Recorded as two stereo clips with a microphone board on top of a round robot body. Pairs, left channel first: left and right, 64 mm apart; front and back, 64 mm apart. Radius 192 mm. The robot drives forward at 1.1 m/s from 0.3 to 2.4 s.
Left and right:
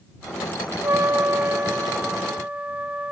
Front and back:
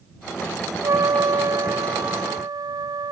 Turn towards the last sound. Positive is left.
turn(degrees=-160)